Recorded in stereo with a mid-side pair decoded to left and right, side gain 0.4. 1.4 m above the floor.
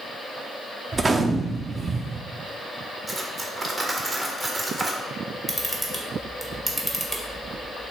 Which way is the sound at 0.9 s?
35° right.